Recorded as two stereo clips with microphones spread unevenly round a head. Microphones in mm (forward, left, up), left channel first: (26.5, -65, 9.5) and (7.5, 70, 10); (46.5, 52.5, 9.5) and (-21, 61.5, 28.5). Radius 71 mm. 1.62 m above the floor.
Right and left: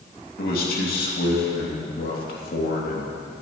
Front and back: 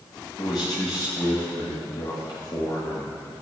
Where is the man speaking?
65° right, 2.5 m.